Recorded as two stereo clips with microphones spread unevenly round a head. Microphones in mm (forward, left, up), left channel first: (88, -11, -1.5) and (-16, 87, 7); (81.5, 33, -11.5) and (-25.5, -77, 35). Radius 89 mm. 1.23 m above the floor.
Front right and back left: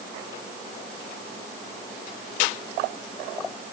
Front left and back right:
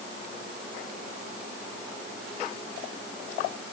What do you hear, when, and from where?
Only background noise.